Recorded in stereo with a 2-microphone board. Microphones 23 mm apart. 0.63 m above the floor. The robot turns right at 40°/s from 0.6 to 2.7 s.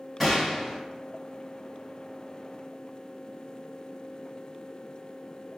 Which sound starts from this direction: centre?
A gunshot, at 0.2 s.